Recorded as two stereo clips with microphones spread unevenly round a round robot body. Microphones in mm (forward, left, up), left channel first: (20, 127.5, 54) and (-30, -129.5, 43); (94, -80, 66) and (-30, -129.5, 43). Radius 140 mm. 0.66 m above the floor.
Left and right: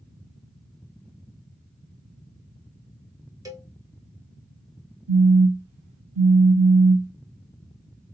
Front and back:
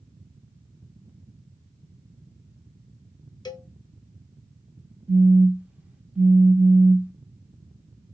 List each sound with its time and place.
3.5 s a cowbell: 35° right, 1.3 m
5.1 s a phone buzzing: 80° right, 1.3 m